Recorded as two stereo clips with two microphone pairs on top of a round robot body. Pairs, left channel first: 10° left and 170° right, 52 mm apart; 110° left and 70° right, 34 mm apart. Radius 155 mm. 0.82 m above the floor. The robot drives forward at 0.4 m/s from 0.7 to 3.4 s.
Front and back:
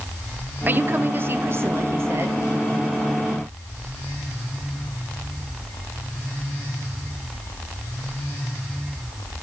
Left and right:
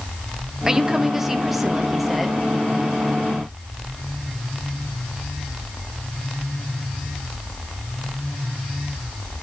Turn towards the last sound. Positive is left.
turn(degrees=-165)